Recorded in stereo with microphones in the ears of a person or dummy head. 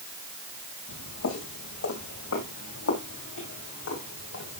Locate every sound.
0.9 s footsteps: 75° left (ahead or behind), 7 m; by 4.6 s 65° left (ahead or behind), 6.5 m